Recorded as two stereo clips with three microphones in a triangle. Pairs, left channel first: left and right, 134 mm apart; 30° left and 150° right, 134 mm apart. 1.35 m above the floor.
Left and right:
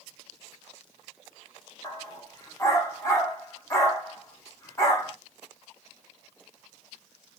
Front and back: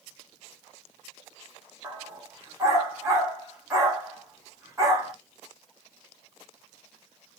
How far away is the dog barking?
About 1.2 m.